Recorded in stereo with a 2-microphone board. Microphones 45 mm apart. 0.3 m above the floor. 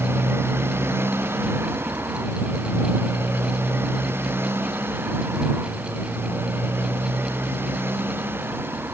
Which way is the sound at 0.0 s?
65° right (ahead or behind).